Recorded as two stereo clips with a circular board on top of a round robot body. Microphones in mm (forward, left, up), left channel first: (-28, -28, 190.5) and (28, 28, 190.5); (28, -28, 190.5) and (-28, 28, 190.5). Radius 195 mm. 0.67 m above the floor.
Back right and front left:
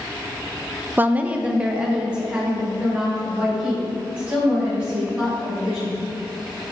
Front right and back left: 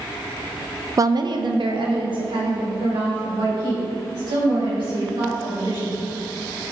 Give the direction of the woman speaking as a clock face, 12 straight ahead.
9 o'clock.